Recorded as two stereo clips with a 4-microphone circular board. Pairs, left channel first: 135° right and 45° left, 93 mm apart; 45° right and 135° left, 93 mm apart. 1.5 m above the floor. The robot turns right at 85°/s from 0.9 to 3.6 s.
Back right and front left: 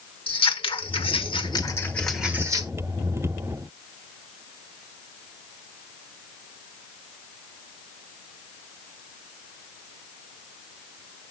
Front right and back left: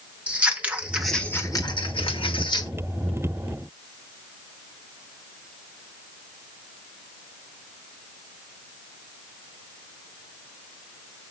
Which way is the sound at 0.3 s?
150° right.